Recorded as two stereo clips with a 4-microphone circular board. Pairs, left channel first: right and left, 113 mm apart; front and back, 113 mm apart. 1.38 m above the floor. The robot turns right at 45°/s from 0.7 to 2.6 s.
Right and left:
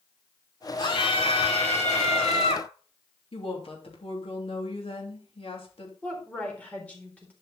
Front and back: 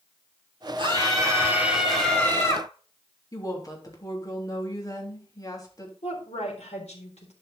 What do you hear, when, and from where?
0.8 s a scream: 140° right, 4.5 m; by 2.7 s 60° right, 4.5 m
3.3 s a woman speaking: 55° right, 3 m
6.0 s a woman speaking: 10° right, 4 m